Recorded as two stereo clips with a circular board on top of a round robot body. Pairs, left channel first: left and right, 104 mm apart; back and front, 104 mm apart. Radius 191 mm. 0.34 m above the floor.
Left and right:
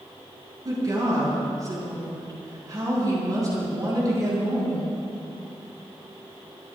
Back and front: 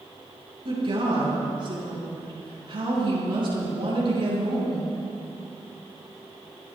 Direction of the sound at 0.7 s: 35° right.